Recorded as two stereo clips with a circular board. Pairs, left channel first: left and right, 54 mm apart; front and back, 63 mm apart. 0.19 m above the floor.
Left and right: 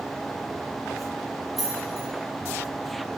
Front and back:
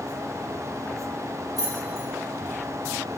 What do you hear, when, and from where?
1.6 s keys jangling: straight behind, 4 m